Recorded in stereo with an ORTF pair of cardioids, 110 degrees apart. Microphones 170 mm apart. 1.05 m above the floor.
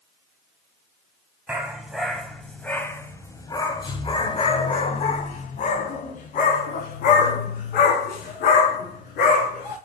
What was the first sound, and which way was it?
A dog barking, 10° right.